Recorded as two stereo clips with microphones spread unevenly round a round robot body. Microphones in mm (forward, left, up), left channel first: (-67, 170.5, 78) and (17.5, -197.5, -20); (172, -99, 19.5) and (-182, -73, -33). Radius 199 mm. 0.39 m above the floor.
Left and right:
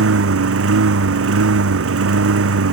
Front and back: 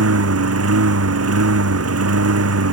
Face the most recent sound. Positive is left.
turn(degrees=-135)